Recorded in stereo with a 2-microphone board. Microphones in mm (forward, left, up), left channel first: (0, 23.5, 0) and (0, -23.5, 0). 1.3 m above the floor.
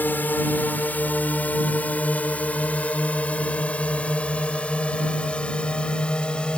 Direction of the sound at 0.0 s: 40° left (ahead or behind).